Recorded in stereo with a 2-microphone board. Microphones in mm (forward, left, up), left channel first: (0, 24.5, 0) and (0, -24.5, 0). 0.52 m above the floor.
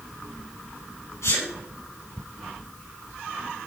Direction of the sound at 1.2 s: 75° left (ahead or behind).